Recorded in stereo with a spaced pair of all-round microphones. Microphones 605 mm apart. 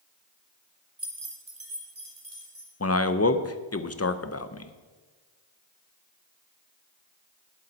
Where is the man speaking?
25° left (ahead or behind), 0.6 m.